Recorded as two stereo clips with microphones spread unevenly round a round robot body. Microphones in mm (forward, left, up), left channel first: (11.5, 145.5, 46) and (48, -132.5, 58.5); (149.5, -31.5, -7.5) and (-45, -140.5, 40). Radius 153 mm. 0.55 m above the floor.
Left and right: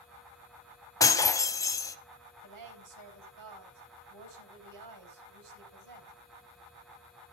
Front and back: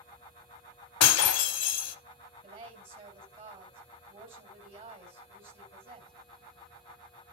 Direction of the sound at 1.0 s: 20° left.